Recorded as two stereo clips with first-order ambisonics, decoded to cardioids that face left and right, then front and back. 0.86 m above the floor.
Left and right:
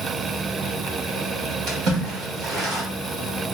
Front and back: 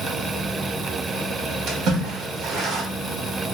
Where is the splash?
130° right, 1.4 m.